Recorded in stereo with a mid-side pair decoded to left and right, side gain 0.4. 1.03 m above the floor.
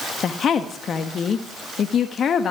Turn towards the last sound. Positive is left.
turn(degrees=60)